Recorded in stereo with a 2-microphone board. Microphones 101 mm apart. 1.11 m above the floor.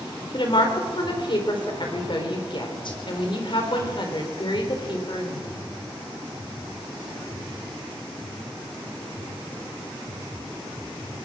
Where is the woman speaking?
55° left (ahead or behind), 4 m.